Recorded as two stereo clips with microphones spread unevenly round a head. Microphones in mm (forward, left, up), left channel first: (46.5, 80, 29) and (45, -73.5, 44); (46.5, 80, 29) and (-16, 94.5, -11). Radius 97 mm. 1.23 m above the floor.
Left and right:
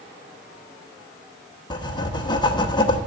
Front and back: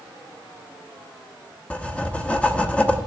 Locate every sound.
1.7 s writing: 25° left, 0.9 m